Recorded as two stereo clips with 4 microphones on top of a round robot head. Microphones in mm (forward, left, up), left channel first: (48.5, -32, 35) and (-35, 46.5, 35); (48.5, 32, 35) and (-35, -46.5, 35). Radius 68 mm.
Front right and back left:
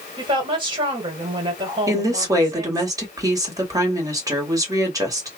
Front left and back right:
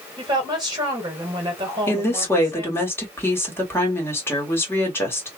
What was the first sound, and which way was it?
A woman speaking, 175° left.